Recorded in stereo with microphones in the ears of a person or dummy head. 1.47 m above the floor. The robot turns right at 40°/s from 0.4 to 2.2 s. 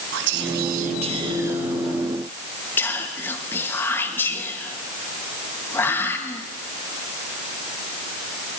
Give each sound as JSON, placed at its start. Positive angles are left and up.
{"t": 0.1, "sound": "whispering", "side_deg": -60, "distance_m": 1.3}